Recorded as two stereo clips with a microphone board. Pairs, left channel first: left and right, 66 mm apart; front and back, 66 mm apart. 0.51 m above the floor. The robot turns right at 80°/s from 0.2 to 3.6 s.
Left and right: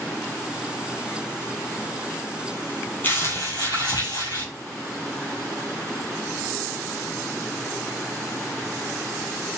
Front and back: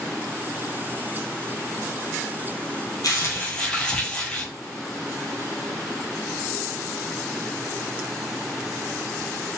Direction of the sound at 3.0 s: 25° left.